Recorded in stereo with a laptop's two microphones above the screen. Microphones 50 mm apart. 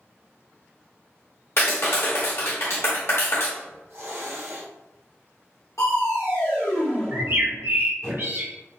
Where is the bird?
50° right (ahead or behind), 0.6 m.